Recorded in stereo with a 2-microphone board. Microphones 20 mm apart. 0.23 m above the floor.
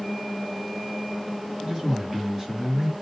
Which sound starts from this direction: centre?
A man speaking, at 1.6 s.